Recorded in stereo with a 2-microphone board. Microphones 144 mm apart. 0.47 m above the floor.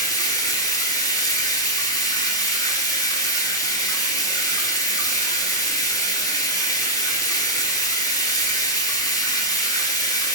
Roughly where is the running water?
Left.